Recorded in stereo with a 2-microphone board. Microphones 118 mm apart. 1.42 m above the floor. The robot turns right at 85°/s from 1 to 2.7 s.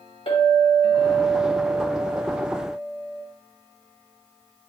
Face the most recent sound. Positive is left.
turn(degrees=-85)